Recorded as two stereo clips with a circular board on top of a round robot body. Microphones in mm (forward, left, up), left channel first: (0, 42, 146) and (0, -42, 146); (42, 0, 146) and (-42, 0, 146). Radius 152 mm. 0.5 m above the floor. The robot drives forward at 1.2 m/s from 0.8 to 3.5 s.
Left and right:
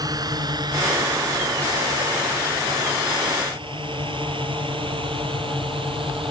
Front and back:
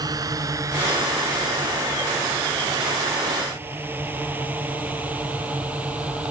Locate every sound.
0.0 s a drone: 135° right; by 6.3 s 105° right